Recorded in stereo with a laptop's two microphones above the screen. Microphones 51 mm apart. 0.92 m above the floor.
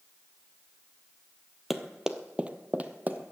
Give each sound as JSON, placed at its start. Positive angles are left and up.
{"t": 1.7, "sound": "running footsteps", "side_deg": -5, "distance_m": 1.0}